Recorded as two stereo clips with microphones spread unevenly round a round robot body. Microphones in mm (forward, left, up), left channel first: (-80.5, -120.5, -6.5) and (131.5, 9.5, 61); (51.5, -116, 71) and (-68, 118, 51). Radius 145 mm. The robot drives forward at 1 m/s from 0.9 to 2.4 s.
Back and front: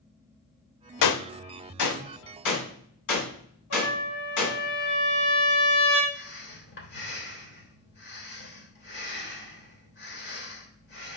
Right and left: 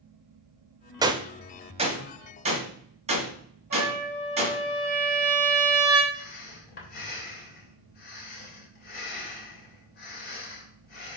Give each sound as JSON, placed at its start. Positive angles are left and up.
{"t": 1.0, "sound": "a gunshot", "azimuth_deg": -165, "distance_m": 0.6}
{"t": 3.7, "sound": "a trumpet", "azimuth_deg": 175, "distance_m": 4.5}
{"t": 6.1, "sound": "breathing", "azimuth_deg": -120, "distance_m": 3.0}